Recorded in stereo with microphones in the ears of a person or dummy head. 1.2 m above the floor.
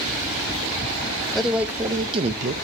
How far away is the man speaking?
About 0.8 m.